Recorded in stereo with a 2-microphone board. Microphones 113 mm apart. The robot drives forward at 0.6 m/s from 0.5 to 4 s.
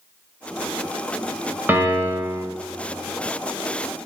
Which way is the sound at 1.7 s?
20° right (ahead or behind).